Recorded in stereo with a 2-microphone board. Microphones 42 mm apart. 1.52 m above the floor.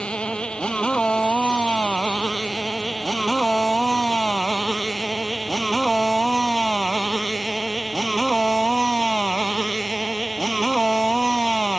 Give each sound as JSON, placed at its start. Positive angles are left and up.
{"t": 0.0, "sound": "a motorcycle", "side_deg": 25}